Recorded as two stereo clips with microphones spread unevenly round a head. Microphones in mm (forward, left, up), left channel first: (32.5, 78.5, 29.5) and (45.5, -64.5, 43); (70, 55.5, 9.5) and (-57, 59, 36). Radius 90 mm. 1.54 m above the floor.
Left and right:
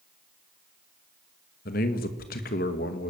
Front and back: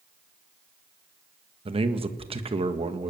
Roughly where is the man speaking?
Behind left.